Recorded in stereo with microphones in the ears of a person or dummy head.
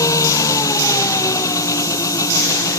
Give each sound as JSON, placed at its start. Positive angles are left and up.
{"t": 0.0, "sound": "an engine running", "side_deg": 20}